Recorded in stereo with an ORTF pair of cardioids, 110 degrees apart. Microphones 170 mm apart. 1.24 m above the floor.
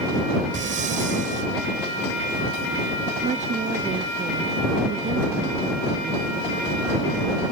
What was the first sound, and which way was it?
Breathing, 50° right.